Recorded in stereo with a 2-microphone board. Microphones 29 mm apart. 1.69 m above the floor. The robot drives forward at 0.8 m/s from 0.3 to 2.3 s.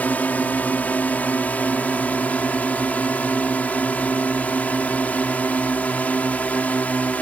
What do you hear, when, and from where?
0.0 s a drone: 85° left; by 7.2 s 70° left (ahead or behind)